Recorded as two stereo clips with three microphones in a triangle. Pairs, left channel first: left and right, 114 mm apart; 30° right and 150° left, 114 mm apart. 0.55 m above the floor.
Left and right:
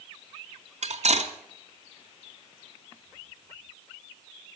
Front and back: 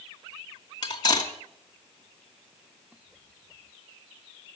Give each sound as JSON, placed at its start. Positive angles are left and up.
{"t": 0.8, "sound": "cutlery clinking", "azimuth_deg": -80, "distance_m": 2.0}